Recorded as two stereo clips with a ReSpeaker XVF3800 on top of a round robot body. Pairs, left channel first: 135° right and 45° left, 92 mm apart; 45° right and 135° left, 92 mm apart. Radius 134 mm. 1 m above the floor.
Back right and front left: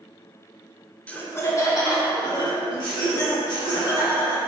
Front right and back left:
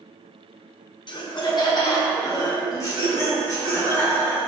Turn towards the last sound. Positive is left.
turn(degrees=-110)